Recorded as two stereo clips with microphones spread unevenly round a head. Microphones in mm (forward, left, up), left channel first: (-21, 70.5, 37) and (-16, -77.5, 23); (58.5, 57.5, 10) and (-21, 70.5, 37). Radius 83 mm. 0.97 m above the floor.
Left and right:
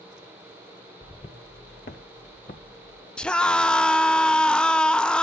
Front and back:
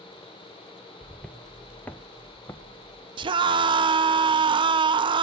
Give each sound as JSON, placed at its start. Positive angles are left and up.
{"t": 1.0, "sound": "footsteps", "azimuth_deg": 105, "distance_m": 1.1}
{"t": 3.2, "sound": "a scream", "azimuth_deg": 180, "distance_m": 0.7}